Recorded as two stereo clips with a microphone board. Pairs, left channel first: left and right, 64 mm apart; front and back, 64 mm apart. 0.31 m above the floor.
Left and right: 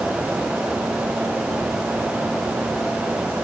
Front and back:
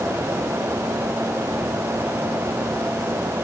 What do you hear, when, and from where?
Only background noise.